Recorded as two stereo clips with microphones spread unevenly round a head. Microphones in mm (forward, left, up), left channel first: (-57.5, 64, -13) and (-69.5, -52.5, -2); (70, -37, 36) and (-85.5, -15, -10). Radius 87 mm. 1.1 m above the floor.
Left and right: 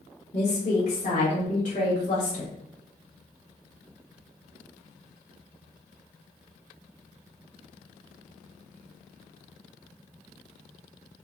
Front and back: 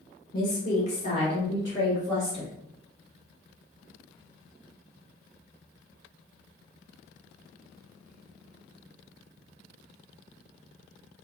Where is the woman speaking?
35° left, 1.4 m; by 2.5 s 75° left, 1.7 m.